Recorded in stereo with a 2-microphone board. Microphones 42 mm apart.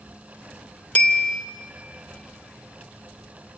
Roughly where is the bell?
Left.